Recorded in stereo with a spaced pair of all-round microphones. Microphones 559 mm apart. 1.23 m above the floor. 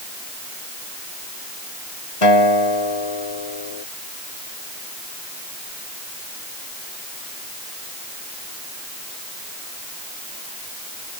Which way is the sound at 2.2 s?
65° left (ahead or behind).